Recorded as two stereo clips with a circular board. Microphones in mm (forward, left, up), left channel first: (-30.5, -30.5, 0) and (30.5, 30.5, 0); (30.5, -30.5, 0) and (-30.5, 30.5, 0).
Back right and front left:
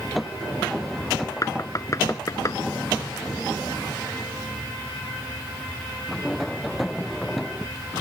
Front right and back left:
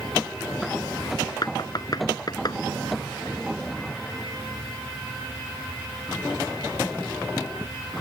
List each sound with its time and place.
1.4 s knocking: 85° right